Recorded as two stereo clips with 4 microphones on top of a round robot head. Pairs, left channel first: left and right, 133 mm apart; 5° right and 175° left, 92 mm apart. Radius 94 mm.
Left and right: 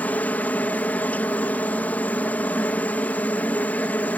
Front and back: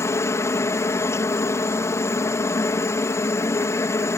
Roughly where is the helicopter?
Ahead.